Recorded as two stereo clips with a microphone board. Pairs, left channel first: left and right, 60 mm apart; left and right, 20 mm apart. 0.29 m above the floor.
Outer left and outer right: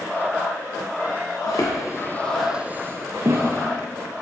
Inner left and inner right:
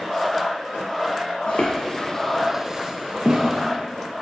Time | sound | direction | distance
1.5 | footsteps | 70° left (ahead or behind) | 1.1 m